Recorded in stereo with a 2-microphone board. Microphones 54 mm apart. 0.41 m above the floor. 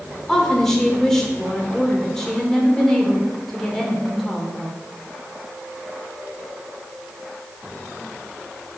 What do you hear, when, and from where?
0.3 s a woman speaking: 10° left (ahead or behind), 1.3 m